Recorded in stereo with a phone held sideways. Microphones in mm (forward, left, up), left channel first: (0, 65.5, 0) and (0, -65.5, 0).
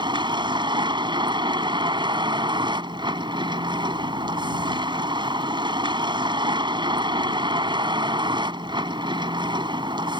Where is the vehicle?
40° right (ahead or behind).